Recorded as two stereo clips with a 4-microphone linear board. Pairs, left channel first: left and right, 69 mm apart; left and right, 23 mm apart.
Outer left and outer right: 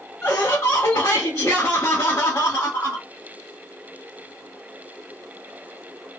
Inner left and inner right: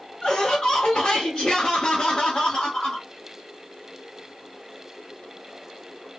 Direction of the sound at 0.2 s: 40° left (ahead or behind).